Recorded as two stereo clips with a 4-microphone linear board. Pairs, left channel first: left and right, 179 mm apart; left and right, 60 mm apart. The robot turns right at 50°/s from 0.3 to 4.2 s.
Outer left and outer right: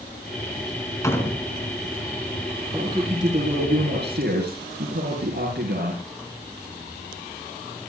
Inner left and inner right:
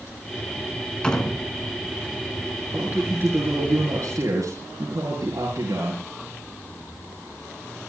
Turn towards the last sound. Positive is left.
turn(degrees=-85)